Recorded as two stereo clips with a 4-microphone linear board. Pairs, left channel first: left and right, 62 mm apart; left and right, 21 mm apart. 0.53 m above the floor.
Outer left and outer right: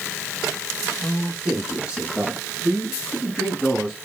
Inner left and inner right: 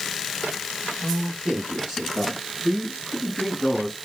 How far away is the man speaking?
About 6.5 m.